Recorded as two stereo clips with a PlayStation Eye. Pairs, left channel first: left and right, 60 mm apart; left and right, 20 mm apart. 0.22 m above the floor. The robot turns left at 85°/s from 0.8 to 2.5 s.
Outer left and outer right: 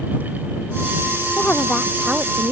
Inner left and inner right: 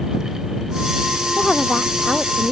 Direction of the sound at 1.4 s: 40° left.